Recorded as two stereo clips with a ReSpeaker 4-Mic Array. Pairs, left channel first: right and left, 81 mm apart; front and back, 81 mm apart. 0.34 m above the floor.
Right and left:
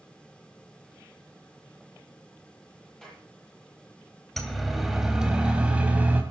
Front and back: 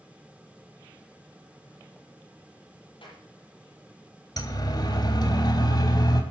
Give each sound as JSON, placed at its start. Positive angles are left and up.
{"t": 3.0, "sound": "a clap", "azimuth_deg": -5, "distance_m": 9.5}
{"t": 4.4, "sound": "a siren", "azimuth_deg": -5, "distance_m": 3.0}